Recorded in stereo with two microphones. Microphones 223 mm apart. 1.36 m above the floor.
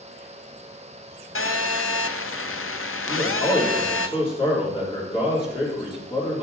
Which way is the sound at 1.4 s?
70° left (ahead or behind).